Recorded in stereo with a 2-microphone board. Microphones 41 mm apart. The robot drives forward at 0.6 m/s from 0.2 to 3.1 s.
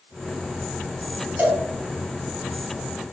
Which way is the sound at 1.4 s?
50° right (ahead or behind).